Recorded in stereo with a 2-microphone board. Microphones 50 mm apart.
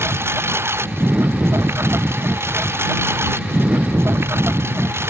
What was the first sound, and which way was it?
A lawn mower, 55° right (ahead or behind).